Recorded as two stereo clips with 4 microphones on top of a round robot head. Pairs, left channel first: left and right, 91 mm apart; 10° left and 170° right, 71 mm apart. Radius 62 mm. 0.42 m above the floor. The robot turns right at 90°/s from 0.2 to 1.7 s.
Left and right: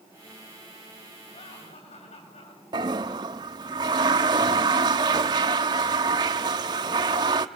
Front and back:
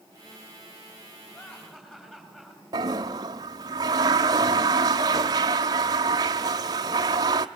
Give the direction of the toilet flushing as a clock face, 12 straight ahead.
4 o'clock.